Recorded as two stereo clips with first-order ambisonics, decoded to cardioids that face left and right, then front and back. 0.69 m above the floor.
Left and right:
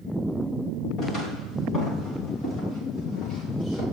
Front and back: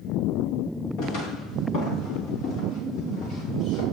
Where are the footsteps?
25° left, 8.5 m.